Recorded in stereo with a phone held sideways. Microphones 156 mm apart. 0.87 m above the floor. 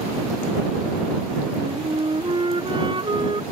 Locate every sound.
1.6 s a flute: 30° right (ahead or behind)